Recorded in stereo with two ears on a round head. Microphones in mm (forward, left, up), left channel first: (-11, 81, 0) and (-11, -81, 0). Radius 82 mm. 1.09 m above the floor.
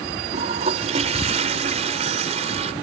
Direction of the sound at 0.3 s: 40° right (ahead or behind).